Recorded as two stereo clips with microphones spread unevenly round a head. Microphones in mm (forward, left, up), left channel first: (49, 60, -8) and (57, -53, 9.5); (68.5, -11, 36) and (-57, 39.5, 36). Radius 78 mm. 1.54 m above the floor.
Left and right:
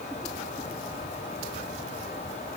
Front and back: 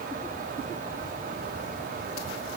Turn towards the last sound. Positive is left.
No sound to turn to.